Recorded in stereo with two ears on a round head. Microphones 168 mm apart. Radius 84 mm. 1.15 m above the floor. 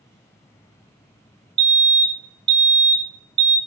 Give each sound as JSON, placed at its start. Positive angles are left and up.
{"t": 1.6, "sound": "a fire alarm", "side_deg": -25, "distance_m": 1.0}